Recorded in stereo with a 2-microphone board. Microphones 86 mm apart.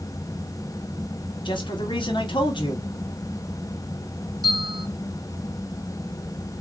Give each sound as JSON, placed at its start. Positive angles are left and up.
{"t": 1.4, "sound": "a man speaking", "side_deg": 70, "distance_m": 0.9}
{"t": 4.4, "sound": "a bell", "side_deg": -50, "distance_m": 1.9}